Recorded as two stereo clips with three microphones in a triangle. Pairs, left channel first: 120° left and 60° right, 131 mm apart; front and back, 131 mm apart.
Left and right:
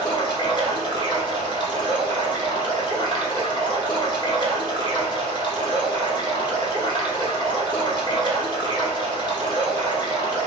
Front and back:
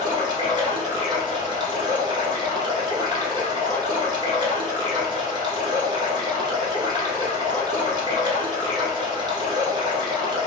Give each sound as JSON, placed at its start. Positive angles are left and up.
{"t": 0.0, "sound": "running water", "azimuth_deg": 145, "distance_m": 1.1}